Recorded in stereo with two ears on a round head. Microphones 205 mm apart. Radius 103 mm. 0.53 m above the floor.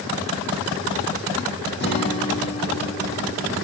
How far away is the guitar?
About 5 m.